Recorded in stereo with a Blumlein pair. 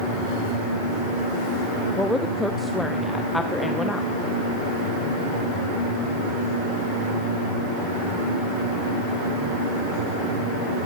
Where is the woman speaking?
5° left, 0.9 m.